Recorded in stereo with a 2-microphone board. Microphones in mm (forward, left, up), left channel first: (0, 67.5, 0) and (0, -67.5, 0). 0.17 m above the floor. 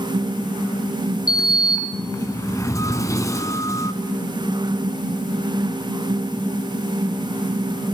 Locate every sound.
1.3 s a sliding door: 25° left (ahead or behind), 1.1 m